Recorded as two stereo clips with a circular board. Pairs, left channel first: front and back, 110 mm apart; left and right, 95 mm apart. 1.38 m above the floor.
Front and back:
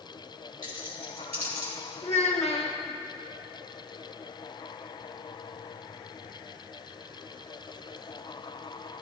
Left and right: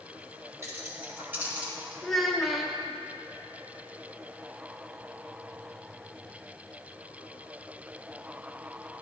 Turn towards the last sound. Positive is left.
turn(degrees=0)